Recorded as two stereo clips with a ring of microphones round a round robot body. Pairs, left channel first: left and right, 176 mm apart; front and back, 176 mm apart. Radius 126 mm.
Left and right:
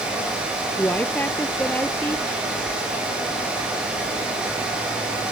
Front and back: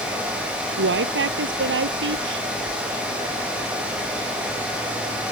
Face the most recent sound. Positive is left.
turn(degrees=175)